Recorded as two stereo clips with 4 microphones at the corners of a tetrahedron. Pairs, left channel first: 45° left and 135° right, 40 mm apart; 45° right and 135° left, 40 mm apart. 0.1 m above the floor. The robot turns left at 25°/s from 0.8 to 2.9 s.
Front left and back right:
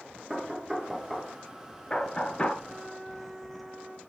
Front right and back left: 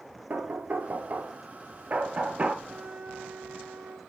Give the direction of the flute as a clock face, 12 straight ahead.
7 o'clock.